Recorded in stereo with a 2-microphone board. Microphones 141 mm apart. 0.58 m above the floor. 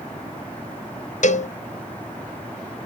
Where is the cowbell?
60° left (ahead or behind), 0.6 m.